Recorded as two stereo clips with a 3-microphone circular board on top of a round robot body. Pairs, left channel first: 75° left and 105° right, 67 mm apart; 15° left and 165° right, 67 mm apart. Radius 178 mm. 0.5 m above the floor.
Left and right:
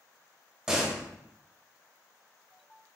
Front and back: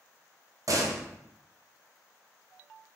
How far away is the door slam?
About 1.0 m.